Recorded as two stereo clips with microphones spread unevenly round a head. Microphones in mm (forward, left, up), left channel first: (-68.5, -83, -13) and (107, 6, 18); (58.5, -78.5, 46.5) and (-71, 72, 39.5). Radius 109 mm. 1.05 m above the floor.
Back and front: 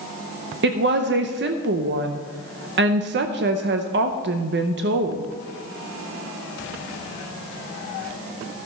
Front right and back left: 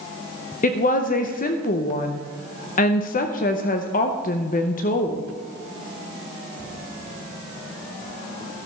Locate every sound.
0.6 s a woman speaking: 5° right, 0.7 m